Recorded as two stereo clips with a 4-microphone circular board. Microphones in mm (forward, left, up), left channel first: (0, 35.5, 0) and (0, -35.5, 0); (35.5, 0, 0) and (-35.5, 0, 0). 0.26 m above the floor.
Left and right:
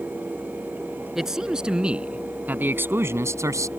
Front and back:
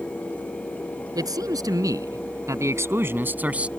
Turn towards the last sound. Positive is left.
turn(degrees=-110)